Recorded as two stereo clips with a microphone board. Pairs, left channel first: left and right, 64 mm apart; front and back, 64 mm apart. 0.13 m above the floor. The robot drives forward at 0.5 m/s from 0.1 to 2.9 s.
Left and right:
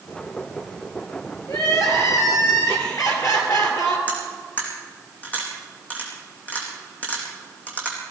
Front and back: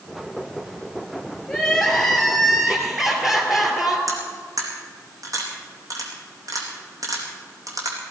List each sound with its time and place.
1.5 s crying: 75° left, 2.5 m; by 4.0 s 95° left, 2.5 m
4.1 s cutlery clinking: 155° left, 4 m